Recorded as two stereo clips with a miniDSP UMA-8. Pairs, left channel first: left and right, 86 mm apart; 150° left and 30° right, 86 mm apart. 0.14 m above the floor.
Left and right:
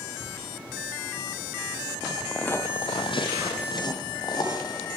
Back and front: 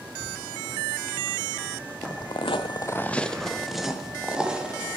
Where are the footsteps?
170° right, 0.9 m; by 5.0 s 50° left, 3 m.